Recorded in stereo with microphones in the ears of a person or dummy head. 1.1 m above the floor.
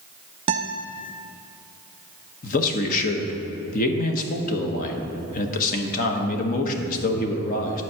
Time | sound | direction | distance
0.5 | a guitar | 30° right (ahead or behind) | 0.6 m
2.4 | a man speaking | 40° left (ahead or behind) | 1.1 m